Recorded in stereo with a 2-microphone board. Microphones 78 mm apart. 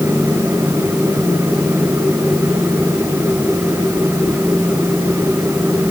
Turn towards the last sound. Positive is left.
No sound to turn to.